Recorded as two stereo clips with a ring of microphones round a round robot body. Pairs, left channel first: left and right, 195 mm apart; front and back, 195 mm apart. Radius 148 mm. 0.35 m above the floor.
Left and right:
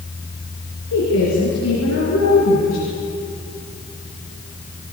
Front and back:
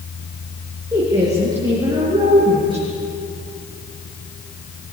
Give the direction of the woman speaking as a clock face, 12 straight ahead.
8 o'clock.